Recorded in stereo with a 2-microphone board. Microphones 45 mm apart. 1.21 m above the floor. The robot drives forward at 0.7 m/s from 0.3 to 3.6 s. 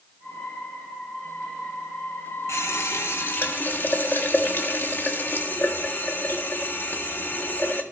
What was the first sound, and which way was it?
A running tap, 75° left (ahead or behind).